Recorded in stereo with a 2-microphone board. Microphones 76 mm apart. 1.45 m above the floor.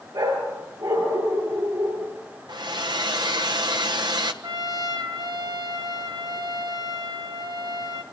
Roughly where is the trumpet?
Right.